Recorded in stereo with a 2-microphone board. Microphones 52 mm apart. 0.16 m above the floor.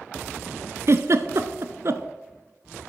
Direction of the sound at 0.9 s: 60° right (ahead or behind).